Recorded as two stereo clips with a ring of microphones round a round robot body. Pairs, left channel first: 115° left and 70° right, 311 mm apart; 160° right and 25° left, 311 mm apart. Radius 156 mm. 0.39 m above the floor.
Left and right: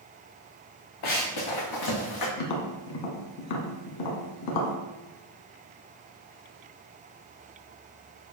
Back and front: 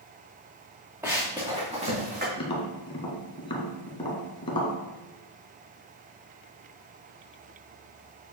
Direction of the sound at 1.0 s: 105° left.